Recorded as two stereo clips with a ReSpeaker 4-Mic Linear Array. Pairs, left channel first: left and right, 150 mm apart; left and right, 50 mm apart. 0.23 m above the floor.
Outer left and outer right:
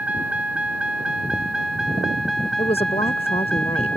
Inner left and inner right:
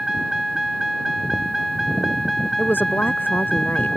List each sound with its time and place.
0.0 s a vehicle: 10° right (ahead or behind); by 4.0 s 5° left (ahead or behind)
2.6 s a woman speaking: 40° left (ahead or behind)